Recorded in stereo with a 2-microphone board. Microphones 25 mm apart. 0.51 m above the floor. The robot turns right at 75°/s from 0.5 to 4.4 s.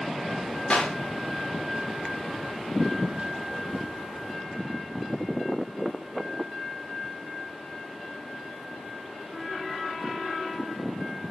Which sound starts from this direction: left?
A clap, at 0.7 s.